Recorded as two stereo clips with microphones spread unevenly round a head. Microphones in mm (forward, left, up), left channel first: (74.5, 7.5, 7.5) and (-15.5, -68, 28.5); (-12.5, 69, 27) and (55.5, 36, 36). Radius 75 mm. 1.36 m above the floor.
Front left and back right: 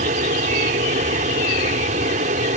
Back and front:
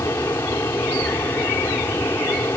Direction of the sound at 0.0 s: 135° right.